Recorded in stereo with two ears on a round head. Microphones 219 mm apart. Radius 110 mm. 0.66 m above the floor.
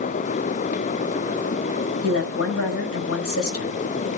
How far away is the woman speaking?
About 3.5 m.